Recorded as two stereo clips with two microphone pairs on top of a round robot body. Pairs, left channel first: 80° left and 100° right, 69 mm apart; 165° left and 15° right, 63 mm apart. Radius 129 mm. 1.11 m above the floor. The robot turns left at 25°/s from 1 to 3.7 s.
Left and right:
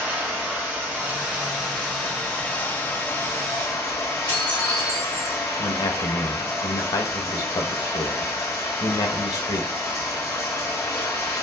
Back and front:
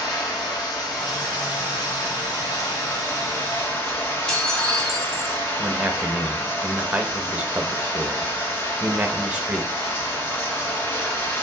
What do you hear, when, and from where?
0.0 s running water: straight behind, 2.5 m; by 11.4 s 110° left, 2.5 m
4.3 s dishes clattering: 85° left, 2.5 m
5.6 s a man speaking: 55° left, 1.4 m